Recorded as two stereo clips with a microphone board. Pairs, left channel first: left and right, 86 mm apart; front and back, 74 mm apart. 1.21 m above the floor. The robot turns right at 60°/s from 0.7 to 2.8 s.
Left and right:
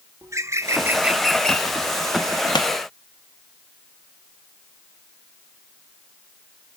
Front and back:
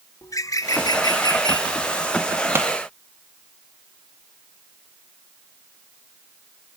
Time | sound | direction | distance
0.2 | a bird | 40° right | 0.6 m
2.5 | a pop | 120° left | 0.8 m